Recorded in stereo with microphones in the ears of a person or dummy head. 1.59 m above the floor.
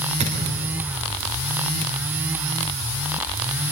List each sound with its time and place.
0.2 s a thud: 35° right (ahead or behind), 3.5 m